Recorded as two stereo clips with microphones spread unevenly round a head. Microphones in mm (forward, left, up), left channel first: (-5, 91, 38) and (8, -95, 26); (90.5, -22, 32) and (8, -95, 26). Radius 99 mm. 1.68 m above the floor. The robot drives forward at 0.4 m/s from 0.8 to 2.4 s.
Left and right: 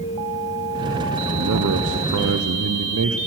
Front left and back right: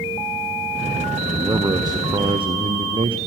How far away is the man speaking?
About 0.9 m.